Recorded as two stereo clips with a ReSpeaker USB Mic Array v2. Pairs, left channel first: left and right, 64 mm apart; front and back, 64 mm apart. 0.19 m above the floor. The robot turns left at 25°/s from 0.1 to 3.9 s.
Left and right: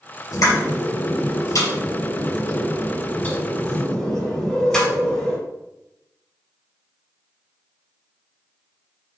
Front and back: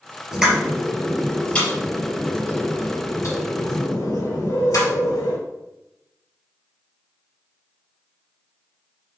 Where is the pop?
100° left, 4 m; by 5.4 s 10° left, 4 m.